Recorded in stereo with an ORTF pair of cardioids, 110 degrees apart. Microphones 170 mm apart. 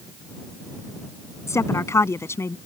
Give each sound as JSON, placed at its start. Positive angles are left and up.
{"t": 1.5, "sound": "a woman speaking", "azimuth_deg": 15}